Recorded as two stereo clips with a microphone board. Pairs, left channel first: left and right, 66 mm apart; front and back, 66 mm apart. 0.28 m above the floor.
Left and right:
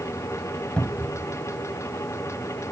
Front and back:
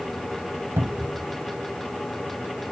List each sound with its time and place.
0.8 s a cupboard door: 150° left